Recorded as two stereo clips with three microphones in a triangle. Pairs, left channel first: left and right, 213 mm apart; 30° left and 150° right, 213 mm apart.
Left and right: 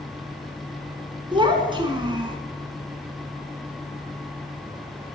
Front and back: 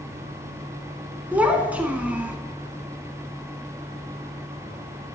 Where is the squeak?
No squeak in this recording.